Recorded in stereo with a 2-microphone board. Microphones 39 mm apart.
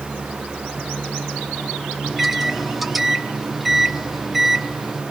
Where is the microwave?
5° right (ahead or behind), 1.0 m.